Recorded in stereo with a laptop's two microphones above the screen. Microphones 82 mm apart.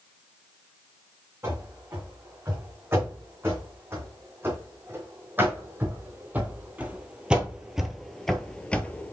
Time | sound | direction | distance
1.4 | running footsteps | 30° right (ahead or behind) | 4 m